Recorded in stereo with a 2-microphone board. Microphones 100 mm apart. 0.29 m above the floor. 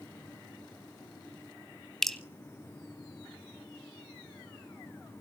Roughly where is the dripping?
Centre.